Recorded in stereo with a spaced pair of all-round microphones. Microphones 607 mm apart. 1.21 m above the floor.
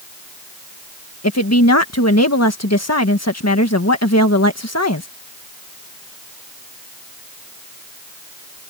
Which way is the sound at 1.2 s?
25° left (ahead or behind).